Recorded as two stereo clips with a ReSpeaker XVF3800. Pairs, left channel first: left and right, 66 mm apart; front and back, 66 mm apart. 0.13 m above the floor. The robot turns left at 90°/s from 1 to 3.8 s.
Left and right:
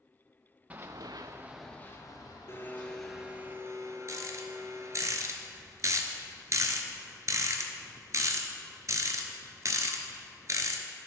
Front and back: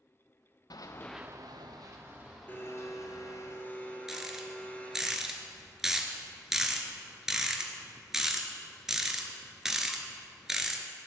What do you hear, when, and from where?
0.7 s running footsteps: 20° right, 0.7 m; by 3.5 s 10° right, 3 m
2.5 s a blender: 55° left, 0.7 m; by 5.1 s 65° right, 0.7 m
4.1 s a rattle: 95° right, 0.6 m